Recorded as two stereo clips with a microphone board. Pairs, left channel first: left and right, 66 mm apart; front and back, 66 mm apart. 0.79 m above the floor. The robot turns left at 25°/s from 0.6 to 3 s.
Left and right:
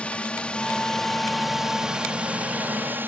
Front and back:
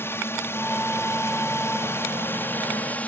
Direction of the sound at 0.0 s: 25° left.